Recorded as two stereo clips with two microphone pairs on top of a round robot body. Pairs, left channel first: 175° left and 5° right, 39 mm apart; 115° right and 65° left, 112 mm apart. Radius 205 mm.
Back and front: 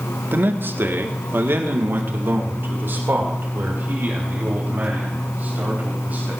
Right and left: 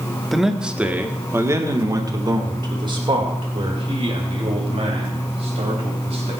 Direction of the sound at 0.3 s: 25° right.